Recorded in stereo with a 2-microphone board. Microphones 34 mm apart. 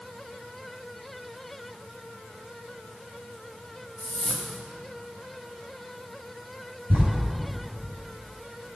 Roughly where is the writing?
Right.